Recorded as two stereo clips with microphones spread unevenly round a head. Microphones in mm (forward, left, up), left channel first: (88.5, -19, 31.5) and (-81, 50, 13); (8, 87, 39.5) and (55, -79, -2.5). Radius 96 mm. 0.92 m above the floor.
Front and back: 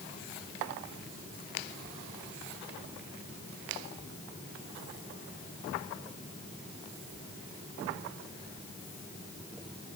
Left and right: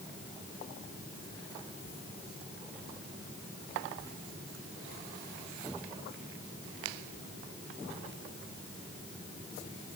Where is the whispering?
I don't hear whispering.